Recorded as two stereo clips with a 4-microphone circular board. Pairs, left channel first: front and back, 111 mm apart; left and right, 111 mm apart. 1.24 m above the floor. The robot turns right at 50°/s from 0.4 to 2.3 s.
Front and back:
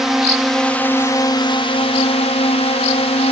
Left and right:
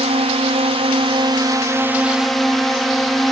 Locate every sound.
0.0 s a drone: 95° right; by 3.3 s straight ahead